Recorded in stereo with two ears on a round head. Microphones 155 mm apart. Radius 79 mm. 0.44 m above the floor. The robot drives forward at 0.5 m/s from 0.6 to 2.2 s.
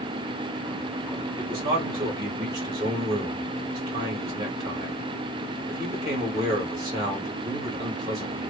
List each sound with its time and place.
1.4 s a man speaking: 25° right (ahead or behind), 1.0 m